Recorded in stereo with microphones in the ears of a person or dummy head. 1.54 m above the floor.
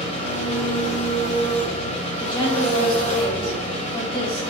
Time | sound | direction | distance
0.0 | an engine running | 35° left (ahead or behind) | 1.0 m
2.2 | a woman speaking | 20° left (ahead or behind) | 1.0 m